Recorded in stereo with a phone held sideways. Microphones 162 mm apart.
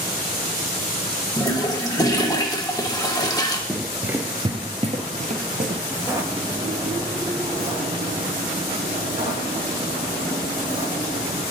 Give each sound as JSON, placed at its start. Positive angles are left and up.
{"t": 1.4, "sound": "a toilet flushing", "side_deg": 25, "distance_m": 0.8}
{"t": 3.7, "sound": "running footsteps", "side_deg": 0, "distance_m": 1.1}
{"t": 5.9, "sound": "footsteps", "side_deg": -15, "distance_m": 1.0}